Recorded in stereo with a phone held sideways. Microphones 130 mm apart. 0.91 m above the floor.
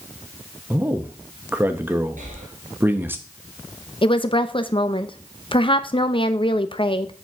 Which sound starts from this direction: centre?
A man speaking, at 0.7 s.